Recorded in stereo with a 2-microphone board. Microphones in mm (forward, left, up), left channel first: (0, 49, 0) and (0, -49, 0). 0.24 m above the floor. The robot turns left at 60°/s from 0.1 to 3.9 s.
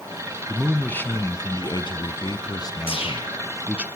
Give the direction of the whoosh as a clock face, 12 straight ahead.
8 o'clock.